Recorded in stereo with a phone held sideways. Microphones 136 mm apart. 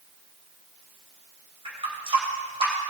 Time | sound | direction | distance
1.6 | a running tap | 40° right (ahead or behind) | 3.5 m